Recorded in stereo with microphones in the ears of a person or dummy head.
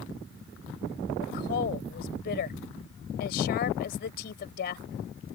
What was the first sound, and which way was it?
A woman speaking, 60° left (ahead or behind).